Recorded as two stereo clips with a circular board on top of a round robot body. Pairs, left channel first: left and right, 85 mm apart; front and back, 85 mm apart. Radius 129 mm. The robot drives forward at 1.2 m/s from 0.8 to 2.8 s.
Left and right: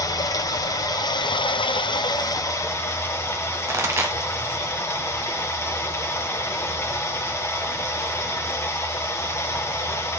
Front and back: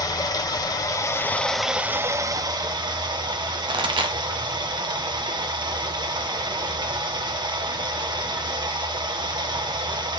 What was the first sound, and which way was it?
Running water, 45° left.